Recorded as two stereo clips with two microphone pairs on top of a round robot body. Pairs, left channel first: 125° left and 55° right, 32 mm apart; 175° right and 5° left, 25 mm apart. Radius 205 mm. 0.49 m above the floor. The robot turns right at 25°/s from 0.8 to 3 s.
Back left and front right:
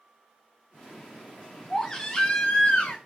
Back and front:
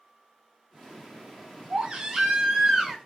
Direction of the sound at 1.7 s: 50° left.